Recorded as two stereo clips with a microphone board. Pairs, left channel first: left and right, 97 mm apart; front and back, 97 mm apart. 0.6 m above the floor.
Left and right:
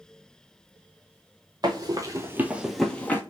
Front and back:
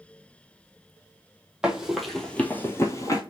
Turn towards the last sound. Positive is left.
turn(degrees=30)